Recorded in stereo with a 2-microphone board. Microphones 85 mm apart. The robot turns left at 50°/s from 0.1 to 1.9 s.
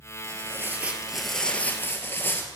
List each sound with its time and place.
0.2 s tearing paper: 130° right, 1.4 m; by 2.5 s 145° left, 1.4 m